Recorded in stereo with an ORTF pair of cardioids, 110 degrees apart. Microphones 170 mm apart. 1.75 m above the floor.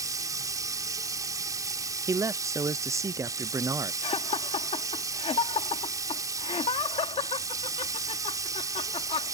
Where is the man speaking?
20° right.